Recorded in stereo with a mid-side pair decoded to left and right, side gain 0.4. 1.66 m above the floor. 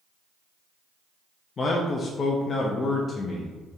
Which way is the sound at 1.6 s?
45° left.